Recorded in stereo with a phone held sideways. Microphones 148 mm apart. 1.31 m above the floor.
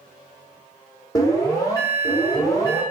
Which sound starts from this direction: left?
An alarm, at 1.1 s.